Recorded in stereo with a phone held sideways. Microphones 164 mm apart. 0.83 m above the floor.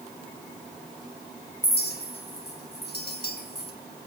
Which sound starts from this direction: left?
A clink, at 1.6 s.